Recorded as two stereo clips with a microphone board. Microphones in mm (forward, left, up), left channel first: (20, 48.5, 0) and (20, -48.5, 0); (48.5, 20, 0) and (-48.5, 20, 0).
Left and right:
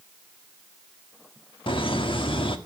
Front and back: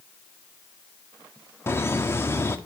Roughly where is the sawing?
I don't hear sawing.